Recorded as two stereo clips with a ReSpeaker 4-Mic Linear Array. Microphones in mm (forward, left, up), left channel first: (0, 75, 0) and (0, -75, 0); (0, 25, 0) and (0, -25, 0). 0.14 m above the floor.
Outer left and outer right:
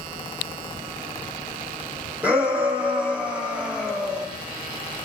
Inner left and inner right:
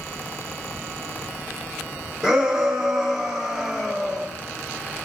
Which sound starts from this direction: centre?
A shout, at 2.2 s.